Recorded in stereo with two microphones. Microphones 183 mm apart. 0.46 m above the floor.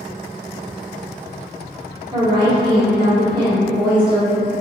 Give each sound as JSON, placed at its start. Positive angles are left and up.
{"t": 2.1, "sound": "a woman speaking", "side_deg": -25, "distance_m": 0.9}